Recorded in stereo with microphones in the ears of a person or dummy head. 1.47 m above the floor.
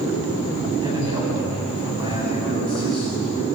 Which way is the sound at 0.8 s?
20° right (ahead or behind).